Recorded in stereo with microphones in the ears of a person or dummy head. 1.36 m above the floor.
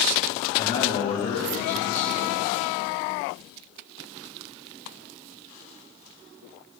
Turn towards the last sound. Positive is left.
turn(degrees=40)  # may be behind; listen again after turning